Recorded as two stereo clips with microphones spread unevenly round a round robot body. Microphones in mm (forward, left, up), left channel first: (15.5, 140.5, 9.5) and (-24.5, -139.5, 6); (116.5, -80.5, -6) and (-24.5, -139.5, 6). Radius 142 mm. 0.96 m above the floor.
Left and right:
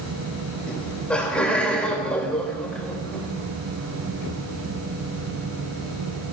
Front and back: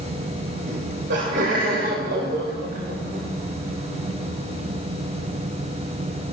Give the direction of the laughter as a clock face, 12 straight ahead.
6 o'clock.